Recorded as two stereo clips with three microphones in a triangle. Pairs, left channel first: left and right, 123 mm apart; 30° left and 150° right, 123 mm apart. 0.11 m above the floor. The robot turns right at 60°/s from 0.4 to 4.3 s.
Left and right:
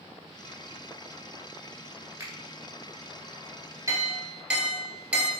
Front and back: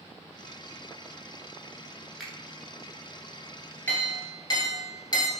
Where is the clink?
40° right, 1.1 m; by 5.3 s 15° right, 1.1 m.